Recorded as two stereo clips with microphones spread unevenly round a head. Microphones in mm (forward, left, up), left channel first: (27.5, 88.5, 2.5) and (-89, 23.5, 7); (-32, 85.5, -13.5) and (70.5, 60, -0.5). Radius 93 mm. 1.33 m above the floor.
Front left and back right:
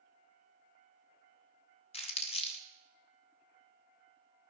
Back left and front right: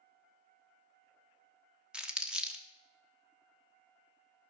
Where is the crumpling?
60° left, 1.1 m.